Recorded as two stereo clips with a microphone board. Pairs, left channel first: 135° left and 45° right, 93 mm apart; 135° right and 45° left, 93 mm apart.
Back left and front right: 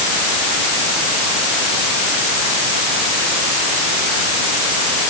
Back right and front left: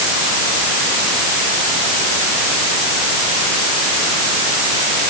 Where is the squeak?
I don't hear a squeak.